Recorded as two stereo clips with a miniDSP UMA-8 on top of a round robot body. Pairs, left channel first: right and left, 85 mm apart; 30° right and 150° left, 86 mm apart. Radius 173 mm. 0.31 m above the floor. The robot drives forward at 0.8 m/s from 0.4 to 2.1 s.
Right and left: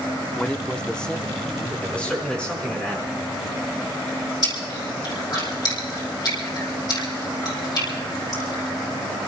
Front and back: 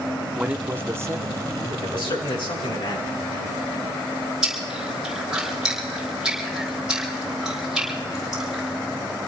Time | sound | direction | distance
0.4 | a man speaking | 150° right | 1.0 m
1.8 | a man speaking | 15° right | 5.5 m
4.4 | chewing | 130° right | 6 m